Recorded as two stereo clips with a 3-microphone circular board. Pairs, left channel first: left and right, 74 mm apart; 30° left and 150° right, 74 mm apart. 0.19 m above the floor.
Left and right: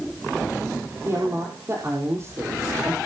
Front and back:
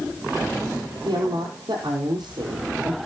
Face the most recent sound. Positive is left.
turn(degrees=-140)